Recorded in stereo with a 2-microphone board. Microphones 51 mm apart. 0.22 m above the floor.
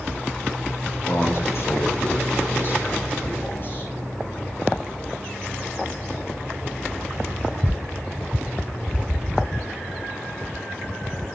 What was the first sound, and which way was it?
A man speaking, 65° left (ahead or behind).